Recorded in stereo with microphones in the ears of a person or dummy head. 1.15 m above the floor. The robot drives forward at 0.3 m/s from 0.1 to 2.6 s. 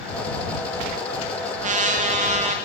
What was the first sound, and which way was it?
A trumpet, 40° right (ahead or behind).